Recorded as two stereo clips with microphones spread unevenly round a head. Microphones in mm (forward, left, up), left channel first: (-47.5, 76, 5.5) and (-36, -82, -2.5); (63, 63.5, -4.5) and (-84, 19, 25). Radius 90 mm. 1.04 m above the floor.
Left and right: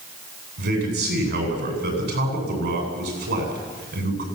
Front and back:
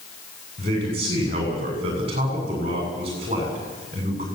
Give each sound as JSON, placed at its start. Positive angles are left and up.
{"t": 0.6, "sound": "a man speaking", "azimuth_deg": -100, "distance_m": 8.5}